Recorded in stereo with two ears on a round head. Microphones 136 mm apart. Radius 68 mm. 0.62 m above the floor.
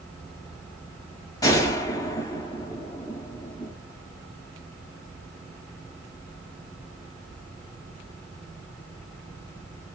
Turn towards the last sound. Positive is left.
turn(degrees=20)  # may be behind; listen again after turning